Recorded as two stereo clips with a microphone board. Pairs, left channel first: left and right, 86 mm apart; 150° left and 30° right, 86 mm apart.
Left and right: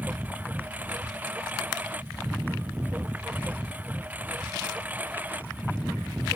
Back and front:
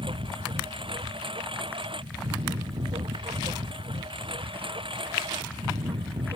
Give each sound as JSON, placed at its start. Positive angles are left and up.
{"t": 0.0, "sound": "a lawn mower", "azimuth_deg": -20}